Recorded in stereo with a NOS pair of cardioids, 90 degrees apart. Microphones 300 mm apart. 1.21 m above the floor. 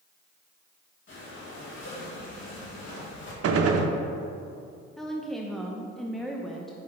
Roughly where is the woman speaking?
Ahead.